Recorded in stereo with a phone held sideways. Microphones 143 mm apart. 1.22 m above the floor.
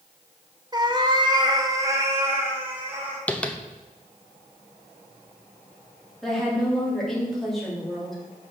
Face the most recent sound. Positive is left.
turn(degrees=0)  # may be behind; listen again after turning